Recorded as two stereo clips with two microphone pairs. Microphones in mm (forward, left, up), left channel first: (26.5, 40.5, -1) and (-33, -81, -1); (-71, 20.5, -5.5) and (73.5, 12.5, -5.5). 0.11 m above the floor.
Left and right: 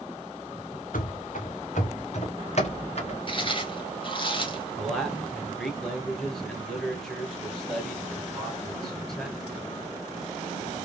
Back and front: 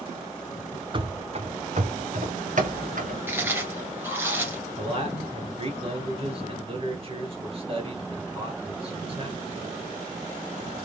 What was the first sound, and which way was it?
Running footsteps, 55° left.